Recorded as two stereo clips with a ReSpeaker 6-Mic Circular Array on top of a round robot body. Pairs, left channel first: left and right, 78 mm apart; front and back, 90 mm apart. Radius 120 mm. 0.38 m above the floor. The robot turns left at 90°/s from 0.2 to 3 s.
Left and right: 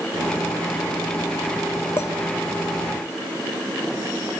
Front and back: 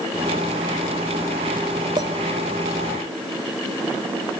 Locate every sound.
2.0 s a clink: 145° left, 1.3 m; by 2.1 s 130° left, 1.3 m